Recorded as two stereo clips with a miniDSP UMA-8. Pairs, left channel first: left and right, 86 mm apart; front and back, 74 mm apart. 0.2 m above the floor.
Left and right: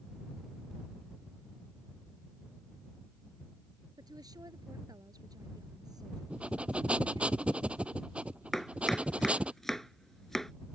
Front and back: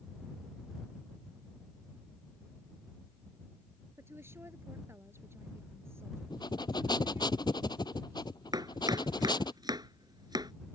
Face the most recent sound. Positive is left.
turn(degrees=175)